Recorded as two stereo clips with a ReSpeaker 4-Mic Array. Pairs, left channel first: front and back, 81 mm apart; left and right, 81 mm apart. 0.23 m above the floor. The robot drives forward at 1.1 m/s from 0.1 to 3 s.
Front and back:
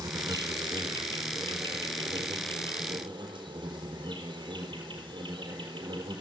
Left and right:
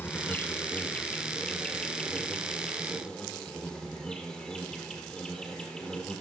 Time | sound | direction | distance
0.0 | an insect | 150° left | 1.6 m